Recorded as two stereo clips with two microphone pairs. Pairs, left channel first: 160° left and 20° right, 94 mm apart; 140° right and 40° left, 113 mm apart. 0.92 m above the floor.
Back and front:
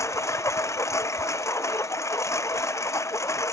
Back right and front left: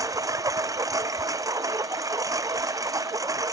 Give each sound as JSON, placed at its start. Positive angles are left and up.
{"t": 0.0, "sound": "a lawn mower", "azimuth_deg": 100}